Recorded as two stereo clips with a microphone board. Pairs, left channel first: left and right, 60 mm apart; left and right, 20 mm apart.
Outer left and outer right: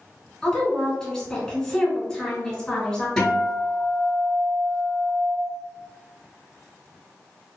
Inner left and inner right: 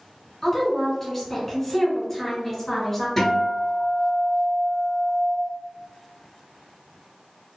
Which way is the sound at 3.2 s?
5° left (ahead or behind).